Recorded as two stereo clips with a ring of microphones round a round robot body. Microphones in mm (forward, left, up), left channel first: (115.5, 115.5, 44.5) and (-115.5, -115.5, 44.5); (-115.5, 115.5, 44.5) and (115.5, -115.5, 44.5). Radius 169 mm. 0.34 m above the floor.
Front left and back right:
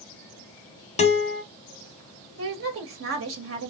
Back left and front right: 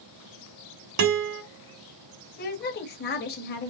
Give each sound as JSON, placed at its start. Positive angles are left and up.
{"t": 1.0, "sound": "a guitar", "azimuth_deg": -20, "distance_m": 0.9}
{"t": 2.4, "sound": "a woman speaking", "azimuth_deg": -170, "distance_m": 1.8}